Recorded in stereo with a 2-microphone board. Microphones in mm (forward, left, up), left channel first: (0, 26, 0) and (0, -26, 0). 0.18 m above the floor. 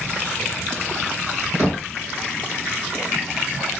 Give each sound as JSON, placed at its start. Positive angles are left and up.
{"t": 1.6, "sound": "knocking", "side_deg": -25, "distance_m": 1.5}